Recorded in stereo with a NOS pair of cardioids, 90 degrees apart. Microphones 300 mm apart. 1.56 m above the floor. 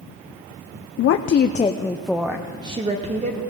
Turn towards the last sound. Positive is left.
turn(degrees=-25)